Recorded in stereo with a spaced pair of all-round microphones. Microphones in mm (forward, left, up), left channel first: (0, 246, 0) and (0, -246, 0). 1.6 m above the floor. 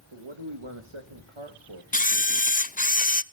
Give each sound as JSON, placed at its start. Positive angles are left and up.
{"t": 0.1, "sound": "a man speaking", "side_deg": -70, "distance_m": 1.9}
{"t": 1.9, "sound": "a camera shutter", "side_deg": 15, "distance_m": 0.6}